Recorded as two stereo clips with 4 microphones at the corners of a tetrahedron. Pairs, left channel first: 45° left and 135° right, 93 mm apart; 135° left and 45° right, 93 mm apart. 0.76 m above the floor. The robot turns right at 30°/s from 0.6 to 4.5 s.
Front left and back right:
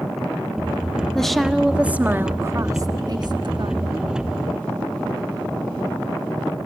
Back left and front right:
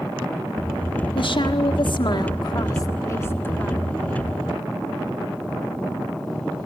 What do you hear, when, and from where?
1.1 s a woman speaking: 130° left, 1.5 m; by 4.0 s 145° right, 1.5 m